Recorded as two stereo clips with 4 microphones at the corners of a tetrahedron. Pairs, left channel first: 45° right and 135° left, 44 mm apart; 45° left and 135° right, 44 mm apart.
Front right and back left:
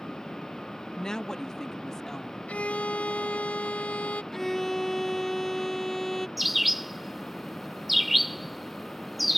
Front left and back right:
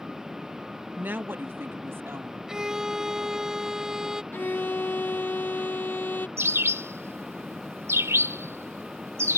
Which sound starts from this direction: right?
A violin, at 2.5 s.